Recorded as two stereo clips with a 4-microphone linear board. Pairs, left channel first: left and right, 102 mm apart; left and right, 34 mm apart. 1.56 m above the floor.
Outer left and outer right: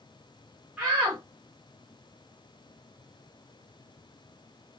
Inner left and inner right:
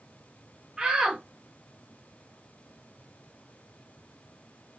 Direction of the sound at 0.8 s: 10° right (ahead or behind).